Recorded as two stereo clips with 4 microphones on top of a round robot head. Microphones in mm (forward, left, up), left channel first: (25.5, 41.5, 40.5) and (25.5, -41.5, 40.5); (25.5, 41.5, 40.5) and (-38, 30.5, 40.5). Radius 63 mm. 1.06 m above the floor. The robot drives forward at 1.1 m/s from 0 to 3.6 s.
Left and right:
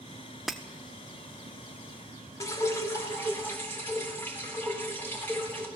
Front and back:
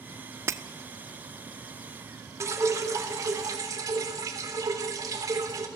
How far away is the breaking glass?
About 0.6 m.